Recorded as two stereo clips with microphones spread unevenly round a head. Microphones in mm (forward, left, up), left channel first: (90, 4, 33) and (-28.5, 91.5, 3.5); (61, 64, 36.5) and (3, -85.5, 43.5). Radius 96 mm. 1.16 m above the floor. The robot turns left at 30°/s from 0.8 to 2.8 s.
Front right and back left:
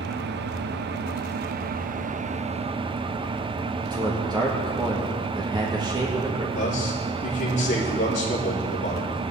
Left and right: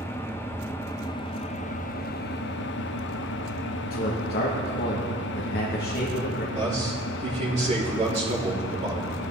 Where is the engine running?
145° left, 0.7 m; by 9.3 s 85° left, 0.7 m.